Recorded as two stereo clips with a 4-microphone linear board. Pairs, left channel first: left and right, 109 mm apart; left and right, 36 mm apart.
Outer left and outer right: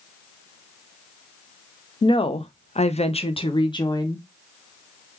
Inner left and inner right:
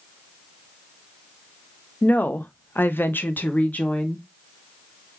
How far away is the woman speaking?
About 0.6 m.